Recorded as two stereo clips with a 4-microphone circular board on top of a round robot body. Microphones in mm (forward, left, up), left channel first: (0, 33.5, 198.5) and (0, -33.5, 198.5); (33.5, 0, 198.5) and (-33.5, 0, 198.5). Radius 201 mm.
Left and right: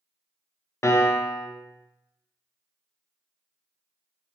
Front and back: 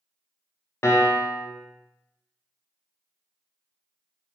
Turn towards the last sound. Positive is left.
turn(degrees=45)